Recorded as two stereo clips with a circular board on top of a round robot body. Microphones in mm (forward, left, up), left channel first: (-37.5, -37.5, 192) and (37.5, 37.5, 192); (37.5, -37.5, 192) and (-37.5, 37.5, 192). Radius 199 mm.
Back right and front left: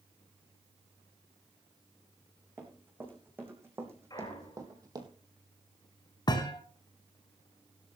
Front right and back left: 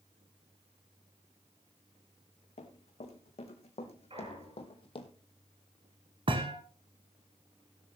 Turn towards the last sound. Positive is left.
turn(degrees=175)